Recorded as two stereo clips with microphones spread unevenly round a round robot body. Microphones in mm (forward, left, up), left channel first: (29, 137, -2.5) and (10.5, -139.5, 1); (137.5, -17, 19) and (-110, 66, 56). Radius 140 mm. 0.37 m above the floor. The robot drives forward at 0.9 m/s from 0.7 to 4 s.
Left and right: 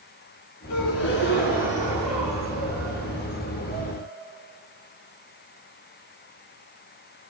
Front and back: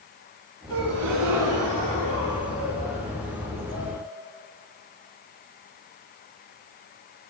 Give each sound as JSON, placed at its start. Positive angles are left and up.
{"t": 0.7, "sound": "a gasp", "azimuth_deg": 120, "distance_m": 1.0}